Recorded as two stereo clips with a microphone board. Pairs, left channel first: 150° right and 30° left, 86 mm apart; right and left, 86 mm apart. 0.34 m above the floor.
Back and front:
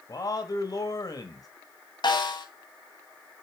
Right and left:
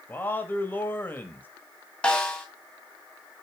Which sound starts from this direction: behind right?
A man speaking, at 0.1 s.